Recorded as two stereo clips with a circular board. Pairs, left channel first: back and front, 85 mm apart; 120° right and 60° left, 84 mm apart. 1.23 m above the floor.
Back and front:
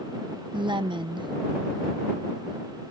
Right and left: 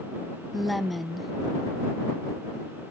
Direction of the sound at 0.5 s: 30° right.